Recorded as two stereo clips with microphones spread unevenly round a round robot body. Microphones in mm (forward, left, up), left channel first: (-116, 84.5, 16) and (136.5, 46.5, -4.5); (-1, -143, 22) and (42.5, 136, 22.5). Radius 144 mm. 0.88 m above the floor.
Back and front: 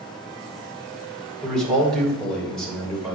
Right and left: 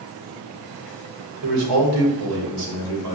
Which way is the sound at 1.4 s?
85° left.